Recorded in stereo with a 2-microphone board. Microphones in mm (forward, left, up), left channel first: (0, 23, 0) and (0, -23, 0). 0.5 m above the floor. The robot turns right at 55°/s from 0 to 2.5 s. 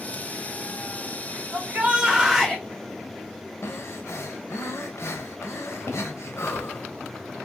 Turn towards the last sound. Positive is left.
turn(degrees=85)